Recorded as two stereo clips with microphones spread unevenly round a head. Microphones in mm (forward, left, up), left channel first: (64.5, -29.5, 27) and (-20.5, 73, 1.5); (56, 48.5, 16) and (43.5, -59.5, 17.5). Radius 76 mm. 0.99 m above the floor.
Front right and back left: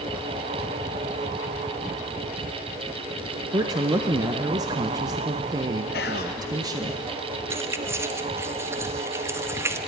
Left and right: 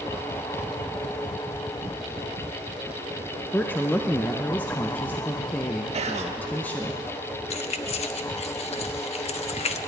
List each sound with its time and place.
3.5 s a woman speaking: 150° left, 0.5 m
5.9 s whispering: 75° right, 1.4 m
7.5 s keys jangling: 60° left, 0.8 m